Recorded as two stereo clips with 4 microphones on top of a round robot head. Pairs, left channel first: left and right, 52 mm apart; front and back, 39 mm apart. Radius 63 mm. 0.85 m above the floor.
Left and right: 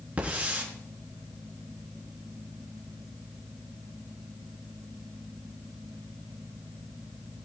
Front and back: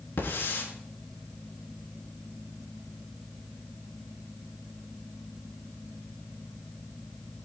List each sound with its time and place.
0.2 s a hiss: 25° right, 5.5 m